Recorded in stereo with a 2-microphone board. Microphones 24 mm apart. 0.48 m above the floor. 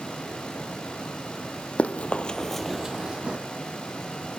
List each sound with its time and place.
1.8 s running footsteps: 70° left (ahead or behind), 1.1 m; by 3.4 s 40° right (ahead or behind), 1.4 m